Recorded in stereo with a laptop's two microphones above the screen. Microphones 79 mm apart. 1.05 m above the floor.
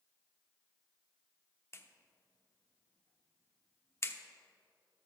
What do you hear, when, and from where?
1.7 s a clap: 30° left (ahead or behind), 0.9 m